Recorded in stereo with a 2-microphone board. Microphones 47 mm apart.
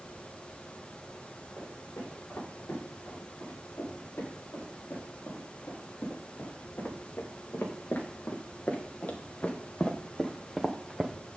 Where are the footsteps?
65° left (ahead or behind), 7.5 m; by 11.2 s 10° right (ahead or behind), 1.6 m.